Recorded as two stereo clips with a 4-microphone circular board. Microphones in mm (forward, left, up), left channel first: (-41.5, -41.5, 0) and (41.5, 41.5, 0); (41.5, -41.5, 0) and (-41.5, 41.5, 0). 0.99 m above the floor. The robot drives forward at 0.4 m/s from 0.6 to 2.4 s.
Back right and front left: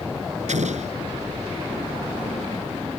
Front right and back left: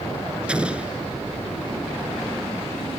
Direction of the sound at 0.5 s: 55° left.